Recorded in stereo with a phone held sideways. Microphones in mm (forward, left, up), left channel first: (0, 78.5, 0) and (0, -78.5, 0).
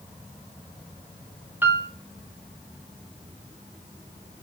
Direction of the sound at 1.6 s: 10° right (ahead or behind).